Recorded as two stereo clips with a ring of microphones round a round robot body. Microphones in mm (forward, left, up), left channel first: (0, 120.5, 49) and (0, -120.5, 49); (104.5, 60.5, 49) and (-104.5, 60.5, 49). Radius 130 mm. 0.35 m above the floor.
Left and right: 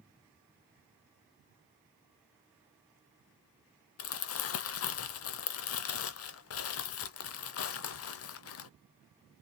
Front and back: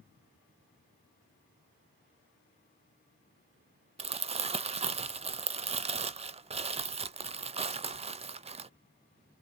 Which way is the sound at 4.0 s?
115° left.